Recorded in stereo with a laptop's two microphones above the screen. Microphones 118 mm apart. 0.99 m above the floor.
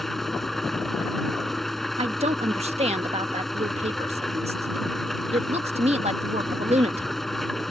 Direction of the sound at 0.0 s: Centre (ahead or behind).